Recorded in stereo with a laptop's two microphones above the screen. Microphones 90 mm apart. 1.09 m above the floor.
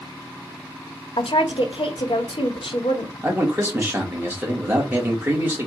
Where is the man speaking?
25° right (ahead or behind), 2 m.